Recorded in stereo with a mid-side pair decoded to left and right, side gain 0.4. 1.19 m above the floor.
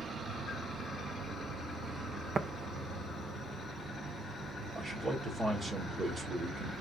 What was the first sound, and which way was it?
An insect, 70° right.